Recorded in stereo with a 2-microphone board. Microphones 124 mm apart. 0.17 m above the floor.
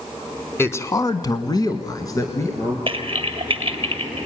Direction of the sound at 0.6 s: 20° left (ahead or behind).